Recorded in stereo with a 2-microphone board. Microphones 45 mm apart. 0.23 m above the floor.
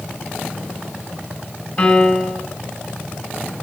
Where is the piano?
20° left (ahead or behind), 1.4 m.